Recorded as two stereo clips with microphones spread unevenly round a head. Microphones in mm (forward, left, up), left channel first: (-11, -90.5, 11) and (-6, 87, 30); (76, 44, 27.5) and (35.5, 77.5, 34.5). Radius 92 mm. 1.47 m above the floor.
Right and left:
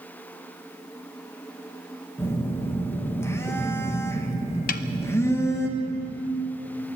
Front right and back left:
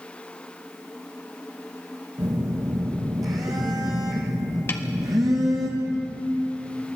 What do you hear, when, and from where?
2.2 s a phone buzzing: 170° right, 1.8 m
4.7 s a snare drum: 85° right, 0.7 m